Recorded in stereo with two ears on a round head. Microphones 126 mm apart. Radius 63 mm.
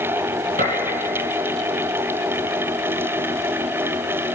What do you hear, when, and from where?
0.6 s a gunshot: 55° right (ahead or behind), 3 m